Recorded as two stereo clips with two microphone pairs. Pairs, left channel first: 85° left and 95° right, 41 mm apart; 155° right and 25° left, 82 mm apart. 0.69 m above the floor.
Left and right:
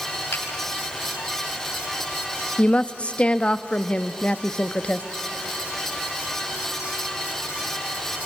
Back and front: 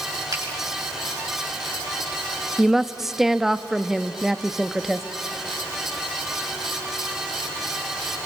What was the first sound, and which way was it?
A finger snap, 65° left.